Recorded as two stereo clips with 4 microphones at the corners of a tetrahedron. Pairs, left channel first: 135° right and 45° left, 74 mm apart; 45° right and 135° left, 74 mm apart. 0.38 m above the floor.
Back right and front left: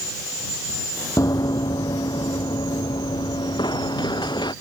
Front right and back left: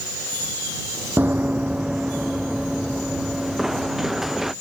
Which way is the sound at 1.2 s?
165° right.